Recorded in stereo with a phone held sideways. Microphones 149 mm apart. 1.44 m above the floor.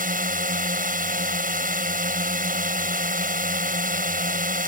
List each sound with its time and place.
0.0 s a drone: 75° right (ahead or behind)